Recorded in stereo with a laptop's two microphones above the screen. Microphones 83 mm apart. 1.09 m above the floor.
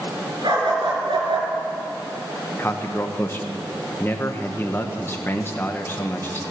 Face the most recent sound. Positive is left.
turn(degrees=25)  # may be behind; listen again after turning